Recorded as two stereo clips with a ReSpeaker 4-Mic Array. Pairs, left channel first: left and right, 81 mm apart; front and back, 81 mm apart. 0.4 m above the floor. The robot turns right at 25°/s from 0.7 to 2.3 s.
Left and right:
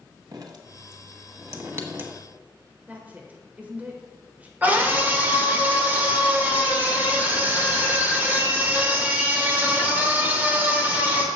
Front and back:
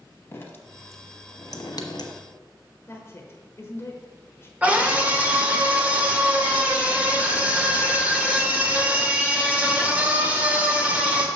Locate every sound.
0.3 s dripping: 60° right, 1.1 m; by 2.1 s 25° right, 1.1 m
2.9 s a woman speaking: 35° right, 1.2 m
4.6 s a scream: 130° right, 1.5 m